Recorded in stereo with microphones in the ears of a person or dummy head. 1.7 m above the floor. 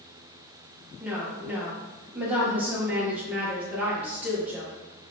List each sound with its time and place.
1.0 s a woman speaking: 5° right (ahead or behind), 2.0 m